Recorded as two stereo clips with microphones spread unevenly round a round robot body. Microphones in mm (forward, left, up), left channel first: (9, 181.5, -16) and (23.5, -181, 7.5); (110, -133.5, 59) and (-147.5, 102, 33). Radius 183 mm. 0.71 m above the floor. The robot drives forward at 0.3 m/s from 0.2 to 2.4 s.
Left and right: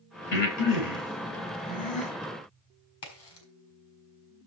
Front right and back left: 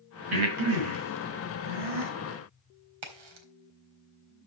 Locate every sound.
0.3 s breathing: 130° left, 4.5 m; by 2.1 s 135° left, 5 m
3.0 s a crack: 145° left, 4 m